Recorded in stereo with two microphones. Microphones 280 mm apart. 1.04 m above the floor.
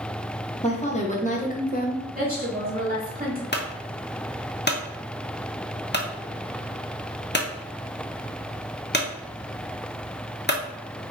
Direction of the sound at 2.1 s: 35° right (ahead or behind).